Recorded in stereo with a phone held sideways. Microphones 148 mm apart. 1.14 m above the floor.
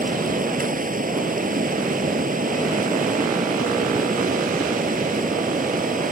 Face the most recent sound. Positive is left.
turn(degrees=-70)  # may be behind; listen again after turning